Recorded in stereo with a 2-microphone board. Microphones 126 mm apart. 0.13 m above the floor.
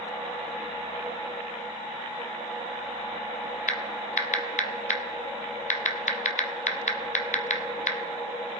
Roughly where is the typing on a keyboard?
Left.